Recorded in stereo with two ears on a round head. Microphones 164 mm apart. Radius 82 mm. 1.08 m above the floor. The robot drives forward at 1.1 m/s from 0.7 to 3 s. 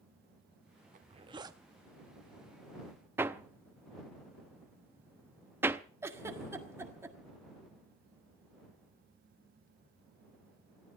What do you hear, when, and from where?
0.9 s a zipper: 45° right (ahead or behind), 0.5 m; by 1.6 s 20° right (ahead or behind), 1.1 m
3.2 s hammering: 10° right (ahead or behind), 0.6 m
6.0 s a giggle: 15° right (ahead or behind), 1.5 m